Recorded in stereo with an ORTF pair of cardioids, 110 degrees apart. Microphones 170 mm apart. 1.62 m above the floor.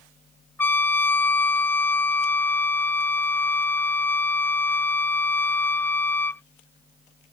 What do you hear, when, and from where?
0.6 s a trumpet: 10° left